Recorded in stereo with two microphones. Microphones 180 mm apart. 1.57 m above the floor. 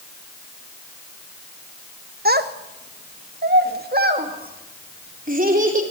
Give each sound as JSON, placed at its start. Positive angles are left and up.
{"t": 2.2, "sound": "a child speaking", "side_deg": -60, "distance_m": 1.2}